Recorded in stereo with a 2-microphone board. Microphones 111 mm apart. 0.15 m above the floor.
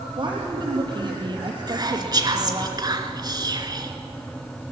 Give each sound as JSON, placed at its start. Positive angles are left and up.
{"t": 0.2, "sound": "a woman speaking", "side_deg": -45, "distance_m": 3.5}
{"t": 1.7, "sound": "whispering", "side_deg": -35, "distance_m": 2.0}